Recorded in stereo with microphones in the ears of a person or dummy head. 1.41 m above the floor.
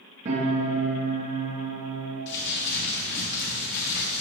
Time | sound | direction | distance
0.2 | a piano | 40° right (ahead or behind) | 2.5 m
2.3 | crumpling | 60° left (ahead or behind) | 3 m